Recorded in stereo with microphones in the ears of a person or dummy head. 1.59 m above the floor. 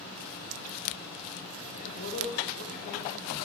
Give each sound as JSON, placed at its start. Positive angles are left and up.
{"t": 1.7, "sound": "a man speaking", "side_deg": 40, "distance_m": 1.7}